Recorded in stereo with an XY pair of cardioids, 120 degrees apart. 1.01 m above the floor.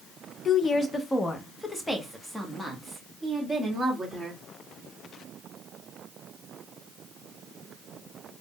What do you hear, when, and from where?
0.5 s a woman speaking: 40° left, 0.6 m; by 4.4 s 5° right, 2.5 m